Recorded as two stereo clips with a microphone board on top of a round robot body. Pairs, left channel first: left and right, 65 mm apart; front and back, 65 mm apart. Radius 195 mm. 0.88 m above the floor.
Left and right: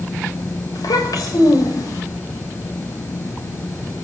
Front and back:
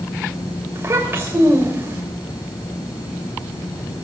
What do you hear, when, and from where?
0.8 s a child speaking: 120° left, 3 m